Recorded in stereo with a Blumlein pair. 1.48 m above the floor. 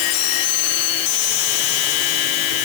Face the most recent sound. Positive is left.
No sound to turn to.